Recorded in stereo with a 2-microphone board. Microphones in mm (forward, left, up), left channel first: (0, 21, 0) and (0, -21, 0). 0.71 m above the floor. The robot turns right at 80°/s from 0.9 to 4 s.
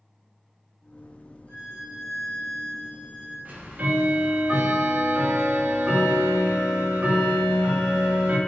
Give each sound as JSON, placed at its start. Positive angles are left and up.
{"t": 1.5, "sound": "a violin", "azimuth_deg": 60, "distance_m": 1.4}
{"t": 3.5, "sound": "ticking", "azimuth_deg": -90, "distance_m": 0.6}